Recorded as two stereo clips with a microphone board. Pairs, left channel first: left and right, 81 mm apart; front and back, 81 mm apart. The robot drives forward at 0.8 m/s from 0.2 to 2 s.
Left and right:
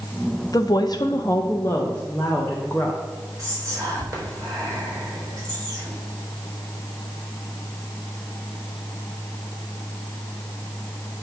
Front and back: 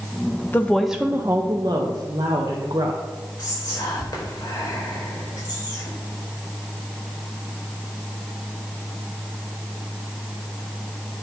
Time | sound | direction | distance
0.5 | a woman speaking | 60° left | 0.6 m
3.4 | whispering | 35° right | 4 m